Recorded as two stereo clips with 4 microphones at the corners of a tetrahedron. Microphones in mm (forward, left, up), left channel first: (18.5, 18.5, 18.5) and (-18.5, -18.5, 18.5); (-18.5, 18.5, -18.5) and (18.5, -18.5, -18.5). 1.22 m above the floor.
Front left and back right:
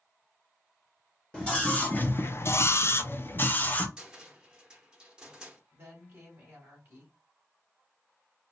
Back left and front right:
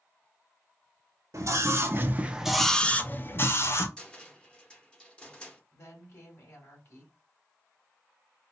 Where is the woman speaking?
170° left, 3 m.